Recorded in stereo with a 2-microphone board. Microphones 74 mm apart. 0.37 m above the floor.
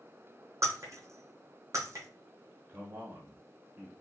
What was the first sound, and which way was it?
Breaking glass, 45° right (ahead or behind).